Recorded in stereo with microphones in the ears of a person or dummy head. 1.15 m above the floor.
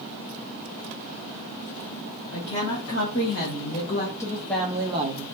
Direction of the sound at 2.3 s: 65° left (ahead or behind).